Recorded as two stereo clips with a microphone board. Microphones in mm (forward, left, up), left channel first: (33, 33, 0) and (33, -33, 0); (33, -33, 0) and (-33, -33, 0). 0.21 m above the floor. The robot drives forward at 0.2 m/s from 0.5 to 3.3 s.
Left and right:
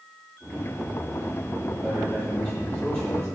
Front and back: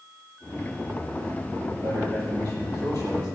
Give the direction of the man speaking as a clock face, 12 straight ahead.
6 o'clock.